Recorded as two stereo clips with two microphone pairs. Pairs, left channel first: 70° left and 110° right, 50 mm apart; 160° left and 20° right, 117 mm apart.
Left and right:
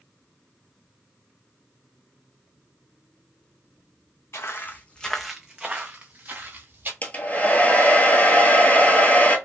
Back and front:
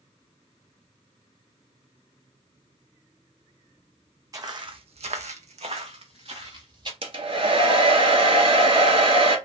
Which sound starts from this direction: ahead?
A hair dryer, at 7.0 s.